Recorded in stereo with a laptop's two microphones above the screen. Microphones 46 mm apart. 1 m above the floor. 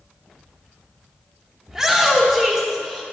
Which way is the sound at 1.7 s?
15° right (ahead or behind).